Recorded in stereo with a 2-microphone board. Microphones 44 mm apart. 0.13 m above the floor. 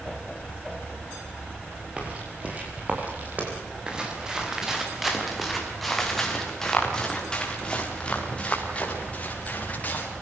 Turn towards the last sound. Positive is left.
turn(degrees=35)  # may be behind; listen again after turning